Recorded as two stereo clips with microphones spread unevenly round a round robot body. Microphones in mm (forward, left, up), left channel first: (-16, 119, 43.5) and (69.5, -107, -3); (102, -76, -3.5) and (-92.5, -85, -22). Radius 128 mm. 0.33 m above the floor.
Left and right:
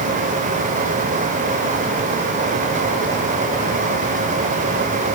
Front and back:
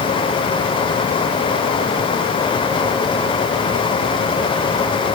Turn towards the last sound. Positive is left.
No sound to turn to.